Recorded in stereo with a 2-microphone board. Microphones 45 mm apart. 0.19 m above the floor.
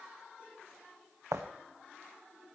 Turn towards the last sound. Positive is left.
turn(degrees=-85)